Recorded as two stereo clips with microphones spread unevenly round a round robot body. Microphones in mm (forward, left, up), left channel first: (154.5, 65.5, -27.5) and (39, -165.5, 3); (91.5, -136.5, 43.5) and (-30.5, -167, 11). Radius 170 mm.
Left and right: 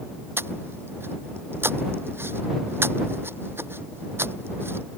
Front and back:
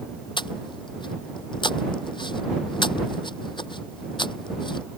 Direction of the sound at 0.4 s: 35° right.